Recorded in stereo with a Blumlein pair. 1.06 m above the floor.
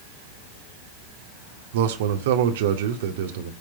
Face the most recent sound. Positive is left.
turn(degrees=-55)